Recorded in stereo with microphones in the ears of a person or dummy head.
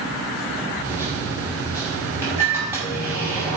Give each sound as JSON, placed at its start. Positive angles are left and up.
{"t": 0.8, "sound": "a microwave", "side_deg": -10, "distance_m": 3.5}